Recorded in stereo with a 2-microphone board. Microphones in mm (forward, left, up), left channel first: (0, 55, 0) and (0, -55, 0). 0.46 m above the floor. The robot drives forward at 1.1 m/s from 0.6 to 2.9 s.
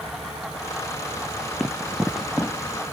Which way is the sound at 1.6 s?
Centre (ahead or behind).